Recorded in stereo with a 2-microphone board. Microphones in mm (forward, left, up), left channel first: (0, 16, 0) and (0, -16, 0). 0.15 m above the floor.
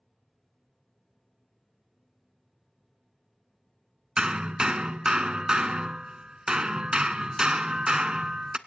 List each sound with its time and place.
4.2 s hammering: 30° right (ahead or behind), 0.6 m